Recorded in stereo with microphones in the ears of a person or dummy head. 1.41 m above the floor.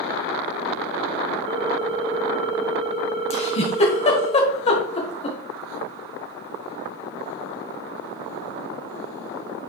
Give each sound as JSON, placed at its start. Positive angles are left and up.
{"t": 1.5, "sound": "a ringtone", "side_deg": -35, "distance_m": 2.0}
{"t": 3.3, "sound": "a giggle", "side_deg": 35, "distance_m": 1.5}